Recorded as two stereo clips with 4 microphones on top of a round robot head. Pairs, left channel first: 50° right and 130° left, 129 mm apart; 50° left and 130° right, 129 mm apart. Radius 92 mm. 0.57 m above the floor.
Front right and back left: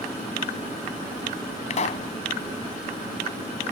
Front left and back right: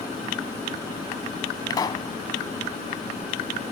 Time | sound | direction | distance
1.7 | a pop | 10° right | ?